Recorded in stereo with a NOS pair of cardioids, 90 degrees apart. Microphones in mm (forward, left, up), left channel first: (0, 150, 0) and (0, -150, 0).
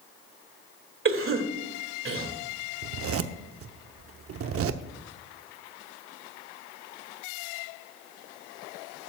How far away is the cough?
About 2.5 m.